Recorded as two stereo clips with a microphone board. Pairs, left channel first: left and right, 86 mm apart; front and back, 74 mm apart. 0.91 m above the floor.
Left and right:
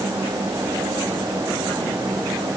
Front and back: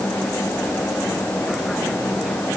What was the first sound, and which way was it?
Only background noise.